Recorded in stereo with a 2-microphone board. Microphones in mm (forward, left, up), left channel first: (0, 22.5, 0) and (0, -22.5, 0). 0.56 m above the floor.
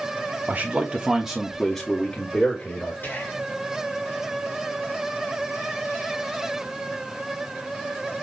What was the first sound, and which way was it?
A man speaking, 40° right (ahead or behind).